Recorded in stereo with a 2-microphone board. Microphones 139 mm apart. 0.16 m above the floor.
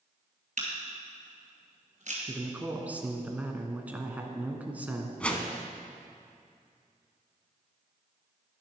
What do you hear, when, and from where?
0.6 s a camera shutter: 60° right (ahead or behind), 2.5 m
2.3 s a man speaking: 10° right (ahead or behind), 1.3 m
5.2 s a whoosh: 10° left (ahead or behind), 1.0 m